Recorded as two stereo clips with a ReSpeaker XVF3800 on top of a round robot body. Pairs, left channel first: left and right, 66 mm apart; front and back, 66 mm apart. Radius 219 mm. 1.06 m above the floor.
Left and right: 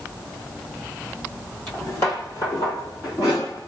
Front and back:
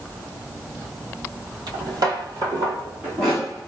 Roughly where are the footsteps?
Behind.